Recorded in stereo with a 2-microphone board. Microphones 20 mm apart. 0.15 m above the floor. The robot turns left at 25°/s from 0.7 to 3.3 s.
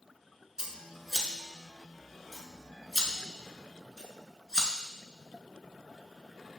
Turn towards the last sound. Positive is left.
turn(degrees=25)  # may be behind; listen again after turning